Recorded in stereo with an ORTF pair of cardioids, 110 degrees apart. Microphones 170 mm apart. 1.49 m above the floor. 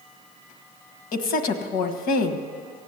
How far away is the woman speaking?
About 1.5 m.